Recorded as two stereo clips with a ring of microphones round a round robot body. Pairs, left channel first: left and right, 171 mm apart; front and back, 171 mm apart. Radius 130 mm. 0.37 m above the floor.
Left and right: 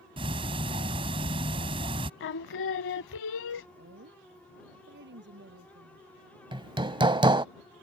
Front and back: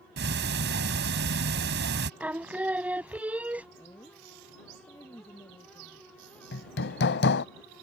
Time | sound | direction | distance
0.2 | ticking | 155° right | ?
2.2 | singing | 100° left | ?
3.8 | a woman speaking | 80° right | ?
6.5 | hammering | 25° right | ?